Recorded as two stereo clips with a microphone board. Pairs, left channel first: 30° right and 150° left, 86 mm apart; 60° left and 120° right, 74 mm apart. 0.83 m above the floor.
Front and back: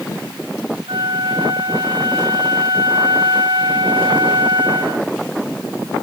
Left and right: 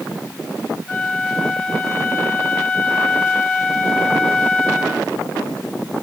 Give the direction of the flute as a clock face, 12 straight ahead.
7 o'clock.